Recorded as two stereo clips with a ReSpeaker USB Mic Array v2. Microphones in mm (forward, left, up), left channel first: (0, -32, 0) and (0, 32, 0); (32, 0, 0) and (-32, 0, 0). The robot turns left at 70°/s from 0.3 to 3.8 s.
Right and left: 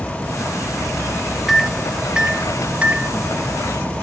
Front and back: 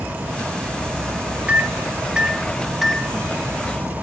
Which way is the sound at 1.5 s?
Straight behind.